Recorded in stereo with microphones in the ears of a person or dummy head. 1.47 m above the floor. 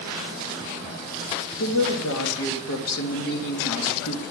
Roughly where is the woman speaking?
Left.